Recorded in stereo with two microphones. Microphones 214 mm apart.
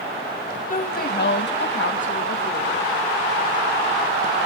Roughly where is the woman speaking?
Left.